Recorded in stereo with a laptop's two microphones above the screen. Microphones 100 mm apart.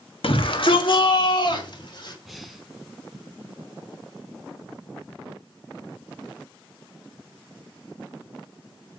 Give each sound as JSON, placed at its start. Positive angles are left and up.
{"t": 0.2, "sound": "a shout", "side_deg": 65, "distance_m": 1.4}
{"t": 2.2, "sound": "breathing", "side_deg": 0, "distance_m": 1.9}